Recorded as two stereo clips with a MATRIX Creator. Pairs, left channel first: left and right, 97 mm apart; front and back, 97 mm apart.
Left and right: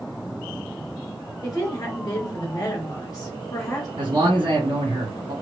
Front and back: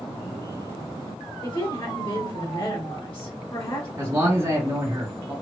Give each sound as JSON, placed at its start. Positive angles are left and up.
{"t": 1.4, "sound": "a woman speaking", "azimuth_deg": 40, "distance_m": 3.5}
{"t": 4.0, "sound": "a man speaking", "azimuth_deg": -120, "distance_m": 2.0}